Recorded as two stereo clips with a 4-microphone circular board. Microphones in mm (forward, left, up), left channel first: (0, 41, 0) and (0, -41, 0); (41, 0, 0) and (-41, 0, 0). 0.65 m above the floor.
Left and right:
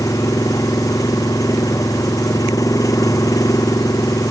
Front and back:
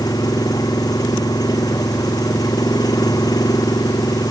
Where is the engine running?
45° left.